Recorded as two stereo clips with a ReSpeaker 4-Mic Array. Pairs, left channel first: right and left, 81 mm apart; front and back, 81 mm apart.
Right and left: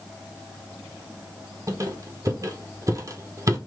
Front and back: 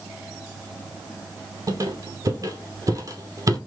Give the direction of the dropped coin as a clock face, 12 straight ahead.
No dropped coin in this recording.